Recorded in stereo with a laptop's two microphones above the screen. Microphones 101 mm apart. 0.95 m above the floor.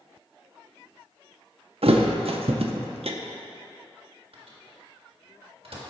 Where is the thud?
70° right (ahead or behind), 0.6 m.